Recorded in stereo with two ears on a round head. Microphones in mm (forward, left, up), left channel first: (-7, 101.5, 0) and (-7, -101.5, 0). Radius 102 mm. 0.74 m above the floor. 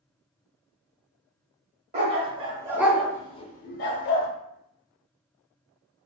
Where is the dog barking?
30° right (ahead or behind), 0.9 m; by 4.3 s 60° left (ahead or behind), 0.7 m.